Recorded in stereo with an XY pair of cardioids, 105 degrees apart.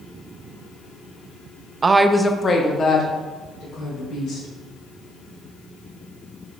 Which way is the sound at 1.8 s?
35° right.